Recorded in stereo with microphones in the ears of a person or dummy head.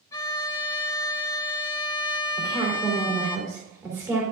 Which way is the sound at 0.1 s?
15° left (ahead or behind).